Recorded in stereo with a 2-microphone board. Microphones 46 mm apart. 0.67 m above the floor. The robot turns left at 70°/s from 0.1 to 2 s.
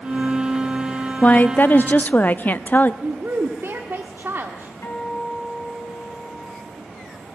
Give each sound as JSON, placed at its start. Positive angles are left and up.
{"t": 1.2, "sound": "a woman speaking", "azimuth_deg": 125, "distance_m": 0.6}
{"t": 3.0, "sound": "a woman speaking", "side_deg": -55, "distance_m": 1.3}
{"t": 4.8, "sound": "a guitar", "side_deg": 70, "distance_m": 5.0}